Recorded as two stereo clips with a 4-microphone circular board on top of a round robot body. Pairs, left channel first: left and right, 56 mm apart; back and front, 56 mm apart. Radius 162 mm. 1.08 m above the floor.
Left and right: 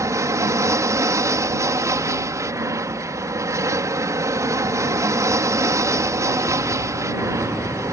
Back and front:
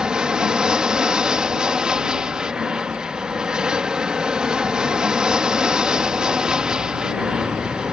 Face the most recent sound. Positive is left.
turn(degrees=-75)